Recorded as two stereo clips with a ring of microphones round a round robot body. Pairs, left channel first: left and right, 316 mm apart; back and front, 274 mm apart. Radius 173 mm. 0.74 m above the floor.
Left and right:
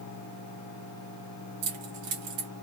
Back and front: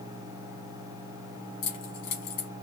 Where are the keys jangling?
135° right, 1.5 m.